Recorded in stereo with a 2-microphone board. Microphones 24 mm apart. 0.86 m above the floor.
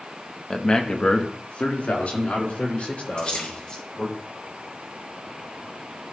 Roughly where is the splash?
Left.